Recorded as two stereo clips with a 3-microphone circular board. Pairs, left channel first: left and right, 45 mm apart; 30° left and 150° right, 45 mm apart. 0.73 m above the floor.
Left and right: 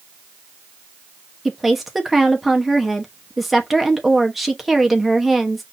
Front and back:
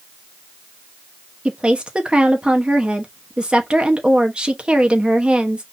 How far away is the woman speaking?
About 0.9 m.